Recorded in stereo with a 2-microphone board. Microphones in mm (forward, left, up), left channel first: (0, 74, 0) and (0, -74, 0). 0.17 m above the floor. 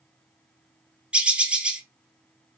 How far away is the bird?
About 0.6 m.